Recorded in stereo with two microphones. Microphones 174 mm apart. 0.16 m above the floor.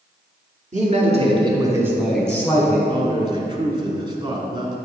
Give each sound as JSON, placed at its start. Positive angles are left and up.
{"t": 0.7, "sound": "a man speaking", "side_deg": -45, "distance_m": 1.8}
{"t": 2.9, "sound": "a man speaking", "side_deg": -30, "distance_m": 1.1}